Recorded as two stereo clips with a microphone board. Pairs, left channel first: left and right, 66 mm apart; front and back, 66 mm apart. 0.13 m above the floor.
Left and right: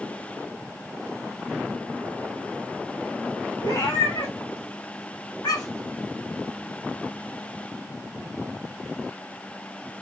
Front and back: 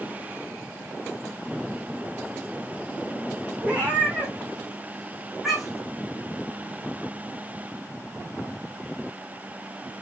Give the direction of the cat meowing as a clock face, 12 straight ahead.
8 o'clock.